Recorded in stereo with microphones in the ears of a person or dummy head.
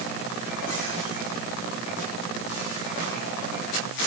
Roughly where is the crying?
No crying in this recording.